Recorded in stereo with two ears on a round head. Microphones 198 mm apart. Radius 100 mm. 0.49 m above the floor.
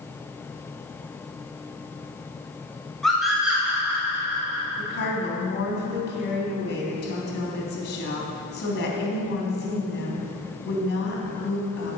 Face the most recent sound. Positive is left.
turn(degrees=45)  # may be behind; listen again after turning